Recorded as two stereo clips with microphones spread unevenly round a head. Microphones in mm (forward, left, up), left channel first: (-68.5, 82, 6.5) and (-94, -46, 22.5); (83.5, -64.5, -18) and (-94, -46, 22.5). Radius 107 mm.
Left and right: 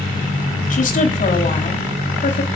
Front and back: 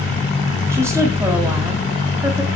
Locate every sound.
0.7 s a woman speaking: 95° left, 1.9 m